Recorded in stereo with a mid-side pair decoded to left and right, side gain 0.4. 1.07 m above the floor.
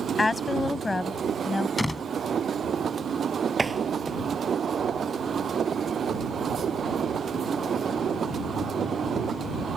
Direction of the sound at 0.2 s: 25° left.